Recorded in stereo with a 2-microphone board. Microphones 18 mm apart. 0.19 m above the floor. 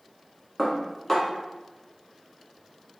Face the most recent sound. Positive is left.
turn(degrees=10)  # may be behind; listen again after turning